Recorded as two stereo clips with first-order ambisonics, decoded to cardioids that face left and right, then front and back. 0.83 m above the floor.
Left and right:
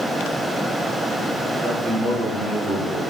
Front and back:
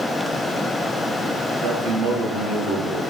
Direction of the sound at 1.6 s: 170° right.